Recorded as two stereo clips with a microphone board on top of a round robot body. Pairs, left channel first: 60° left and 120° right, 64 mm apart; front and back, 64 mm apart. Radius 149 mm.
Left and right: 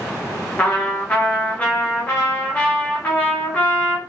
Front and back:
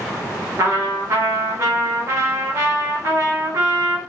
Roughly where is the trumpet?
Behind left.